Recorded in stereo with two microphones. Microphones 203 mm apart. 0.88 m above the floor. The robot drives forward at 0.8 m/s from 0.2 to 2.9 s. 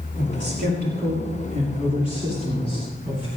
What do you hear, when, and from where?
0.2 s a man speaking: 60° right (ahead or behind), 2.5 m; by 3.3 s 35° right (ahead or behind), 3.5 m